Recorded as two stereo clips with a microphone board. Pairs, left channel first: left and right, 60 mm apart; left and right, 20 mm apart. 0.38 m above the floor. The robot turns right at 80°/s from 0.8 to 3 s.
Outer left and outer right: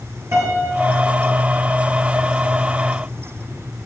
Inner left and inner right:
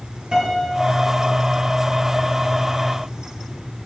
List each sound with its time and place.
0.3 s a piano: 130° right, 5 m; by 1.7 s 55° right, 5 m